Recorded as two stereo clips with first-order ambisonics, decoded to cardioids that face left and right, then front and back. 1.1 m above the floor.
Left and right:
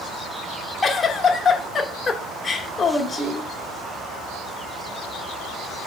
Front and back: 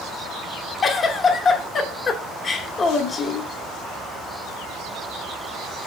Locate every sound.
0.8 s a giggle: 35° left, 0.7 m